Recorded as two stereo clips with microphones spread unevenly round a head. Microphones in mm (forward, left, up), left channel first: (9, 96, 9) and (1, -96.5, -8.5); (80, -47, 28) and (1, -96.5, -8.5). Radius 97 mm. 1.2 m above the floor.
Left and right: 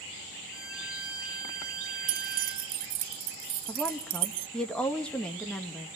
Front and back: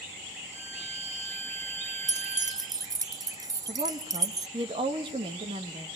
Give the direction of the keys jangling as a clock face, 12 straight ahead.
3 o'clock.